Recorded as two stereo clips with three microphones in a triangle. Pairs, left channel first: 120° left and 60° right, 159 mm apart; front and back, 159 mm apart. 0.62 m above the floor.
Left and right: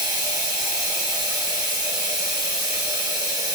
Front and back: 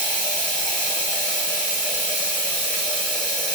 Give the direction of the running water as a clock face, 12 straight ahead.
2 o'clock.